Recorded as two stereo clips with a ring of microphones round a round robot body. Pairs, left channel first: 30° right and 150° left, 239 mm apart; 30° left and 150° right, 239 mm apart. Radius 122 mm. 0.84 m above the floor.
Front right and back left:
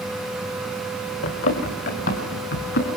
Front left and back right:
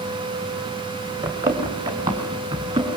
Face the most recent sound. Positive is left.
turn(degrees=-75)